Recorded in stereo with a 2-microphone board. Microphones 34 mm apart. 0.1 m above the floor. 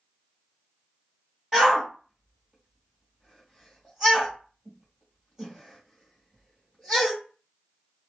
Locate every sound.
1.5 s a shout: 15° right (ahead or behind), 2 m